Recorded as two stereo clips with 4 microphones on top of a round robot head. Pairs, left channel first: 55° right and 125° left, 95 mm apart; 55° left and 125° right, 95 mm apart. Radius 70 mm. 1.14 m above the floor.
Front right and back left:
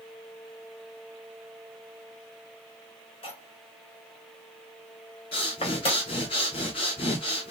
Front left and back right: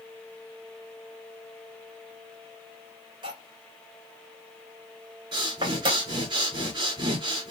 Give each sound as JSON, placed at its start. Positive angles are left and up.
{"t": 3.2, "sound": "cutlery clinking", "azimuth_deg": -80, "distance_m": 2.5}
{"t": 5.3, "sound": "breathing", "azimuth_deg": -85, "distance_m": 3.0}